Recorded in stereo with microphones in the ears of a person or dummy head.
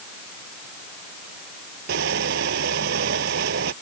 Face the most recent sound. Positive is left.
turn(degrees=-70)  # may be behind; listen again after turning